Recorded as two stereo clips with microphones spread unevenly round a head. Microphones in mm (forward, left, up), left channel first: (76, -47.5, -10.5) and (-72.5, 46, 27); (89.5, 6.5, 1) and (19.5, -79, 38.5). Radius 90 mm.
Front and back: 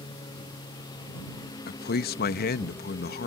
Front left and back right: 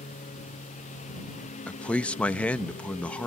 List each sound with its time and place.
0.0 s a lawn mower: 35° left; by 3.3 s 40° left
1.7 s a man speaking: 20° right